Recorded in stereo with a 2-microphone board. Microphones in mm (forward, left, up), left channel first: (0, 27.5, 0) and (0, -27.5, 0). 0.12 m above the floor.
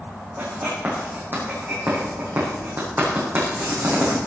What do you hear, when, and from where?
0.4 s writing: 40° right (ahead or behind), 6 m